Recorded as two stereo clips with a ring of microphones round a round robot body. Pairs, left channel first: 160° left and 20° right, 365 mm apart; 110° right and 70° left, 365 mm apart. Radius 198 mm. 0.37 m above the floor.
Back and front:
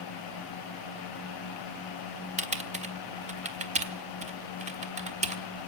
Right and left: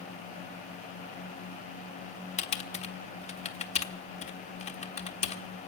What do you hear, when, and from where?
2.4 s typing on a keyboard: 65° right, 1.4 m